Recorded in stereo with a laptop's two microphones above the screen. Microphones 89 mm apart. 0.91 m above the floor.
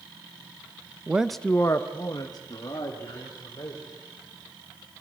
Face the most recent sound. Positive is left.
turn(degrees=50)  # may be behind; listen again after turning